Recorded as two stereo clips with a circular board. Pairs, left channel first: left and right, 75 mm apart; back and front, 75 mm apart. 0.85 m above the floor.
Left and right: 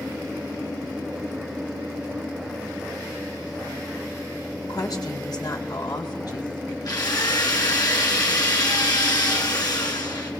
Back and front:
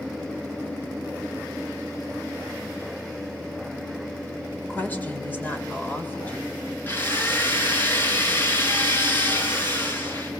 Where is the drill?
120° left, 6 m.